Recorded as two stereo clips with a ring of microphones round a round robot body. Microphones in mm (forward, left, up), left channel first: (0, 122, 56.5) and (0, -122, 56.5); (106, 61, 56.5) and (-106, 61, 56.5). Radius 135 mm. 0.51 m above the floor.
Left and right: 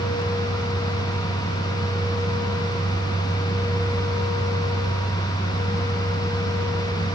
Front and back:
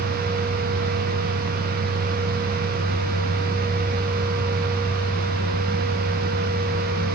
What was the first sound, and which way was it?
Only background noise.